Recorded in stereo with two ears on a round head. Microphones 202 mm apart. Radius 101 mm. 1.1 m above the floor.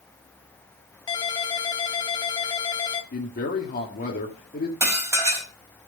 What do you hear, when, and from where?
1.1 s a ringtone: 20° left (ahead or behind), 1.6 m
3.1 s a man speaking: 35° left (ahead or behind), 2 m
4.8 s dishes clattering: 15° right (ahead or behind), 4.5 m